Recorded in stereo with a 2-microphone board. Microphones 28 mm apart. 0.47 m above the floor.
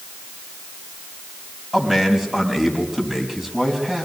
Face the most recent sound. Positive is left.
turn(degrees=-15)  # may be behind; listen again after turning